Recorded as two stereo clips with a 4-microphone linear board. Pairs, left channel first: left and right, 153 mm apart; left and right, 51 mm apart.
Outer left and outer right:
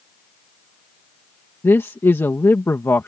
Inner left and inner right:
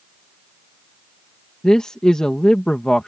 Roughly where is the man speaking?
Centre.